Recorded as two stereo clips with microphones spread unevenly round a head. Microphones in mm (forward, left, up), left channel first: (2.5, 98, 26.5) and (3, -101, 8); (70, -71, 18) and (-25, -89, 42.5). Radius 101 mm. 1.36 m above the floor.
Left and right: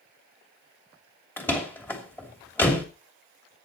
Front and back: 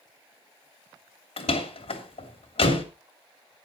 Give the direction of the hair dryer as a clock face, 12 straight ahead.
I don't hear a hair dryer.